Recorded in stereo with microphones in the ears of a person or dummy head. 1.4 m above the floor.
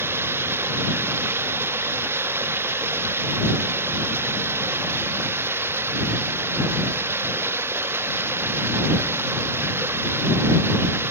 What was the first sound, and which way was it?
Running water, 10° right (ahead or behind).